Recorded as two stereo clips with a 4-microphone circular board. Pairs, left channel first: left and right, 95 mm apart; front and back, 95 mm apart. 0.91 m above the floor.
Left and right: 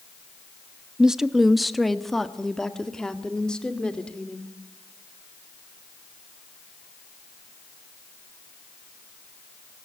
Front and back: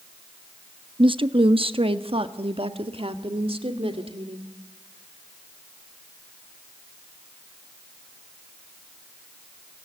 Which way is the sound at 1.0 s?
170° right.